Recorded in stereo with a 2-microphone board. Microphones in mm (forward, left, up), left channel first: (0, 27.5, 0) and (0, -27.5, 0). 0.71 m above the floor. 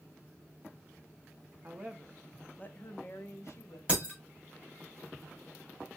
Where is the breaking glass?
25° right (ahead or behind), 1.9 m.